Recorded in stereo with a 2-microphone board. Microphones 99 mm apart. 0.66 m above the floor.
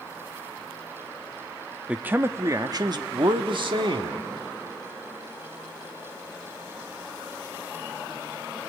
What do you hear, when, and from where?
1.9 s a man speaking: 15° right (ahead or behind), 0.8 m; by 4.2 s 60° right (ahead or behind), 1.6 m